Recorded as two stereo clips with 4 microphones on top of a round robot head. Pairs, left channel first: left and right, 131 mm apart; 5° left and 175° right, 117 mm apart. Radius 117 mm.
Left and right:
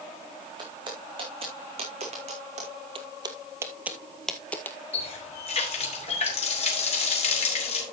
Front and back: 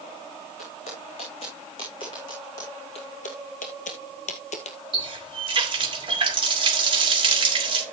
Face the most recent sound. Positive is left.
turn(degrees=140)